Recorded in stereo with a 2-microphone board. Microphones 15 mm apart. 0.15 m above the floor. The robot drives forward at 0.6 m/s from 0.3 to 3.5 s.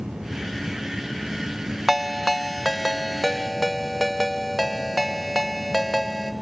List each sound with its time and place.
1.9 s a ringtone: centre (ahead or behind), 0.5 m